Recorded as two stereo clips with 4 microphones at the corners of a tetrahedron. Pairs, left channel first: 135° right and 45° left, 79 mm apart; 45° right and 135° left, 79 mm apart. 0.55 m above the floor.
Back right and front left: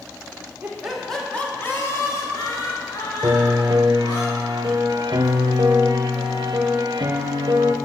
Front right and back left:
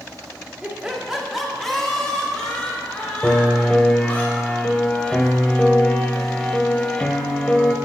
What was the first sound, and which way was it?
Laughter, 90° left.